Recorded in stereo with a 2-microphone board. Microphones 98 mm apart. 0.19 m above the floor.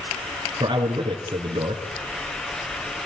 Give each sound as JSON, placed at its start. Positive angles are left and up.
{"t": 0.6, "sound": "a man speaking", "side_deg": -55, "distance_m": 3.0}